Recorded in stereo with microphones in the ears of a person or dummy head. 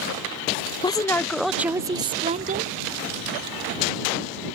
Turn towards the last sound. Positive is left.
turn(degrees=-45)  # may be behind; listen again after turning